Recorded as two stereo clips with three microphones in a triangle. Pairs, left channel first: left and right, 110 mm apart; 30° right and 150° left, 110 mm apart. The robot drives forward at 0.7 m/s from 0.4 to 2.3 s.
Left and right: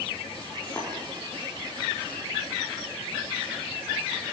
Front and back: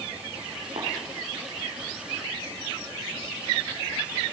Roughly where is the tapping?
Behind.